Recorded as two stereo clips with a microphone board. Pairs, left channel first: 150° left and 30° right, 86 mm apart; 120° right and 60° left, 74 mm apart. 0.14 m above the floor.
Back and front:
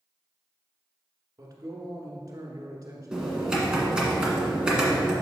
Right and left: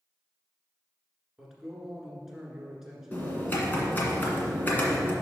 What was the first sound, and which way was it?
A man speaking, 20° right.